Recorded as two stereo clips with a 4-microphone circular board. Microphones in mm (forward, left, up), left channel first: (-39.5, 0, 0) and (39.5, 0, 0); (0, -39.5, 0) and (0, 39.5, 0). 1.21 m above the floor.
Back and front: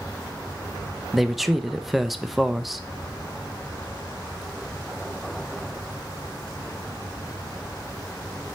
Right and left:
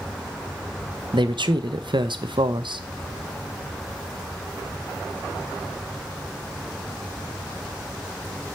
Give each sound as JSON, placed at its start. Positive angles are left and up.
{"t": 1.1, "sound": "a man speaking", "azimuth_deg": 90, "distance_m": 0.6}